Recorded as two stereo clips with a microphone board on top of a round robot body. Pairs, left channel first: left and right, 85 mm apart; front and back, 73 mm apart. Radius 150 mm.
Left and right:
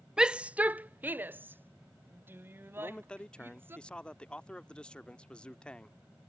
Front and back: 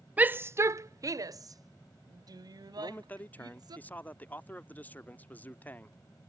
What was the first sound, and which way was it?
A shout, 155° right.